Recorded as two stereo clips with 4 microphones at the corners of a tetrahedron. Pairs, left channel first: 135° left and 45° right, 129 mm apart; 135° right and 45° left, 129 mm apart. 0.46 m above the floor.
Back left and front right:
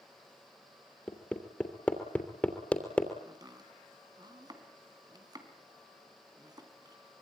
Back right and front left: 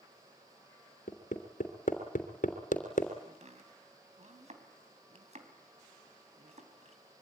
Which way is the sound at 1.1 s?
145° right.